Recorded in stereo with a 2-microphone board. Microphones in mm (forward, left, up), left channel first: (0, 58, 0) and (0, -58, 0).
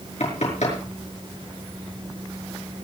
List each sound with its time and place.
0.2 s knocking: 80° left, 5.5 m